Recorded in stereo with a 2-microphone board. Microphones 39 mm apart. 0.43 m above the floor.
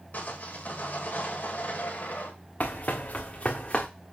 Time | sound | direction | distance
0.1 | sawing | 45° left (ahead or behind) | 2 m
2.6 | running footsteps | 40° left (ahead or behind) | 2 m